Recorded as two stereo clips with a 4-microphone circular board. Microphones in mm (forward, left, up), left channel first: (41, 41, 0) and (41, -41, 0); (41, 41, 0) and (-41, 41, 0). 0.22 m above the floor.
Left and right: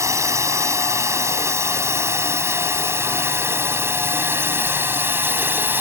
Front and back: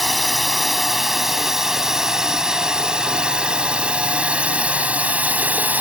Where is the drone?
90° right; by 5.8 s 125° right.